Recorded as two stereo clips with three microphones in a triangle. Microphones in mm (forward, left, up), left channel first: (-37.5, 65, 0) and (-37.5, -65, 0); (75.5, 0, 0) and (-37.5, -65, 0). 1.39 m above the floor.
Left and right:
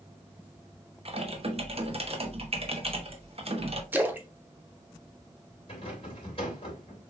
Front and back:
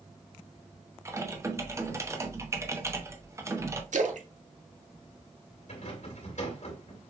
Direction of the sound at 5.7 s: 50° left.